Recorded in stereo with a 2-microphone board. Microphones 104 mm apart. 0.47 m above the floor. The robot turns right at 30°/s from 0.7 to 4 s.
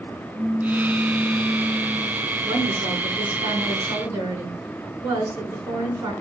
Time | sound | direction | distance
0.3 | a pop | 165° right | 1.7 m
2.4 | a woman speaking | 80° right | 5 m